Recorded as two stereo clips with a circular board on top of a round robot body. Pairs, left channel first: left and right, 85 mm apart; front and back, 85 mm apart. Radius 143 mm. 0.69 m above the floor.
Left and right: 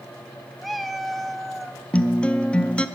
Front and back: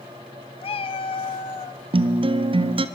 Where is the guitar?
170° left, 0.6 m.